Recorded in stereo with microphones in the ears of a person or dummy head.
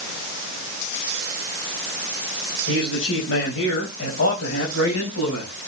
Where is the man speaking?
75° left (ahead or behind), 5 m.